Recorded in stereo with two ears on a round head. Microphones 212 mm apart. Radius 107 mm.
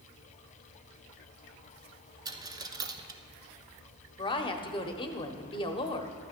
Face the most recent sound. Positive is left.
turn(degrees=20)  # may be behind; listen again after turning